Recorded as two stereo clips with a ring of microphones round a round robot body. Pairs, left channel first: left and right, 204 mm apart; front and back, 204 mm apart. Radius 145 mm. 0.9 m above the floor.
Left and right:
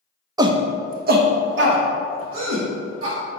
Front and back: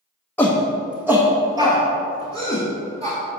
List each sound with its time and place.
0.4 s a shout: 65° right, 0.5 m; by 3.2 s 110° right, 1.7 m